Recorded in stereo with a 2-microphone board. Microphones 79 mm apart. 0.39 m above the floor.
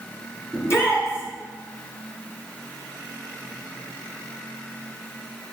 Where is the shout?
35° left (ahead or behind), 4.5 m.